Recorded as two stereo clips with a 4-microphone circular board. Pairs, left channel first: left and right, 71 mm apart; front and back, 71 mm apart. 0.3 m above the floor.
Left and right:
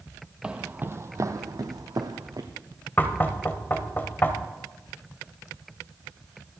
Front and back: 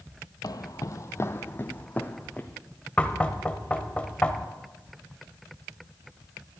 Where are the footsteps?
15° right, 0.6 m; by 2.5 s 75° right, 1.4 m.